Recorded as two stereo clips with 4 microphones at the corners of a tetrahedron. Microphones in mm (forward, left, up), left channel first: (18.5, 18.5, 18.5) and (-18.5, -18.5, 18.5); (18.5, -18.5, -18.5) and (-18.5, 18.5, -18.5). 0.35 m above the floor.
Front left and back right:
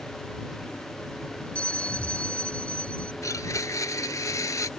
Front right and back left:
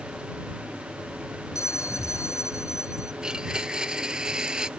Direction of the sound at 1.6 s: 25° right.